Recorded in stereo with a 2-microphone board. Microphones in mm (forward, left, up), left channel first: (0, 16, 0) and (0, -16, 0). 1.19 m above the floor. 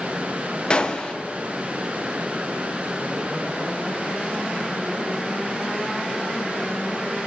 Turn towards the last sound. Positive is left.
turn(degrees=30)  # may be behind; listen again after turning